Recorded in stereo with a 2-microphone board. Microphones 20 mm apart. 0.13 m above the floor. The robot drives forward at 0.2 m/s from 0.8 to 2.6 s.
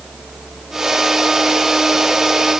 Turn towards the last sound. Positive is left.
No sound to turn to.